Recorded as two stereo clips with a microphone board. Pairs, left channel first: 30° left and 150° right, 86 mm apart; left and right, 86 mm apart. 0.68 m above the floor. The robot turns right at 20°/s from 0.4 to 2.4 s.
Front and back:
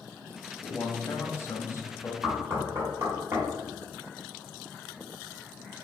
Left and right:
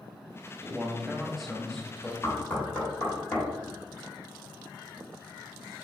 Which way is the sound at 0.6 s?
15° right.